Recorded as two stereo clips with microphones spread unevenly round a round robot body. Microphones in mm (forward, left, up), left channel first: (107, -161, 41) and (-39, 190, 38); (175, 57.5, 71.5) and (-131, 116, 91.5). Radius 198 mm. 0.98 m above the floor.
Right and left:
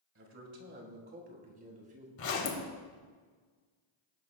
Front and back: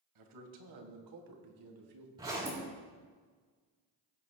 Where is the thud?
No thud in this recording.